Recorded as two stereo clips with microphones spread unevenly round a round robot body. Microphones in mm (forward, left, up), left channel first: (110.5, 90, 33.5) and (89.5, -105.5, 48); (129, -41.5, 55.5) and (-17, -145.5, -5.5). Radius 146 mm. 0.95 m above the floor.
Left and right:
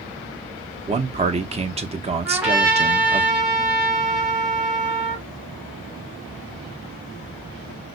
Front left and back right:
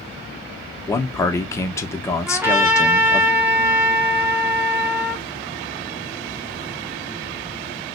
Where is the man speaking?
60° right, 0.7 m.